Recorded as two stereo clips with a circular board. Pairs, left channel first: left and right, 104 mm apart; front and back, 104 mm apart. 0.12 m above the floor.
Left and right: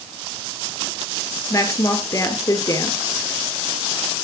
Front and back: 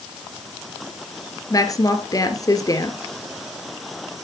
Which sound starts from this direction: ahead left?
A woman speaking, at 1.5 s.